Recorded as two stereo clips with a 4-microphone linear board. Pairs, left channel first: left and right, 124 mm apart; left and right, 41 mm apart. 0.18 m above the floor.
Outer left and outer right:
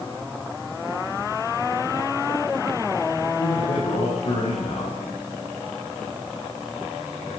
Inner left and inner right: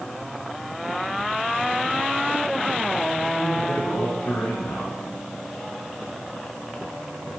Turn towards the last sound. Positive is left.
turn(degrees=85)